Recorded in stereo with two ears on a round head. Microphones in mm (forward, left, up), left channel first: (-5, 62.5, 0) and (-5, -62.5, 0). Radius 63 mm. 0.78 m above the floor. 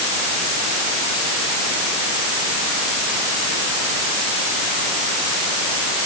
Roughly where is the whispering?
I don't hear whispering.